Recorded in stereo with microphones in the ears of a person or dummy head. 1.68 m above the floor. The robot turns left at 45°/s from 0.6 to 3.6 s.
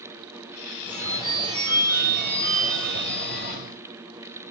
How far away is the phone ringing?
About 1.7 m.